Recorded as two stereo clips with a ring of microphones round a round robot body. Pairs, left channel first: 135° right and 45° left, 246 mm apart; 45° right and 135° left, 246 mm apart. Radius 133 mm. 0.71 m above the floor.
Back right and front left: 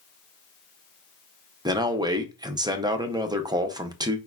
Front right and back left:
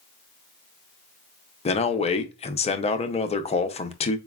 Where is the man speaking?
15° right, 0.5 m.